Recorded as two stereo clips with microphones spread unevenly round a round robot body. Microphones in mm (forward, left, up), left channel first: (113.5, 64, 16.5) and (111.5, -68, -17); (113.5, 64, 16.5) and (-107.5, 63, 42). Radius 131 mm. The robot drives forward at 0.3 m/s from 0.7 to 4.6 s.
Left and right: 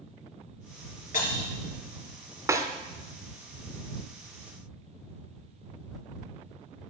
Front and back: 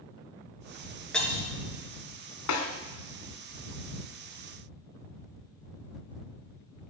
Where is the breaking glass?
85° left, 3 m; by 1.5 s 90° left, 3 m.